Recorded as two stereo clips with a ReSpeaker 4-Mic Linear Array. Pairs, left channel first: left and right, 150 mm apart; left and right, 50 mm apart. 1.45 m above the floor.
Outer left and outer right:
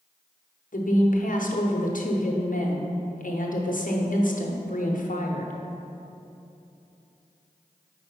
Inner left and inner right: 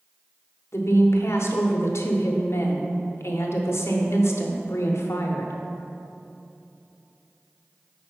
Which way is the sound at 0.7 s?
65° left (ahead or behind).